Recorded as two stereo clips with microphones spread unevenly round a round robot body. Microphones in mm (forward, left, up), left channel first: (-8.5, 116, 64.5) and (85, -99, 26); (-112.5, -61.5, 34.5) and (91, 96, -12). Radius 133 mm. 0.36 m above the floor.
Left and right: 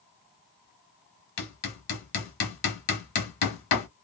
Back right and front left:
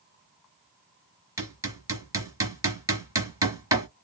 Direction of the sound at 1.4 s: 115° left.